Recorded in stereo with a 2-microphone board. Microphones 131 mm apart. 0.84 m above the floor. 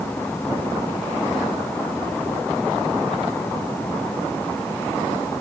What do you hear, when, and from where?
Only background noise.